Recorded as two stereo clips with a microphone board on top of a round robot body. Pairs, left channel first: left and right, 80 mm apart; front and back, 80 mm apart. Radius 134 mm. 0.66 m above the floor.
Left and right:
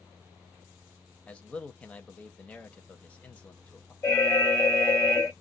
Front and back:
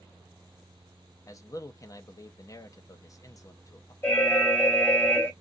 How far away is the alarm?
About 1.7 m.